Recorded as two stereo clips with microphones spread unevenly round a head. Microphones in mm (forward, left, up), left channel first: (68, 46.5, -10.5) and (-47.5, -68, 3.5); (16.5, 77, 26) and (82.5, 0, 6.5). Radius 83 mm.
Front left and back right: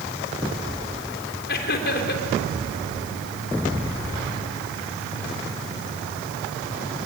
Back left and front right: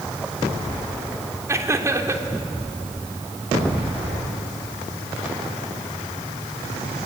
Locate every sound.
1.5 s laughter: 15° left, 3.5 m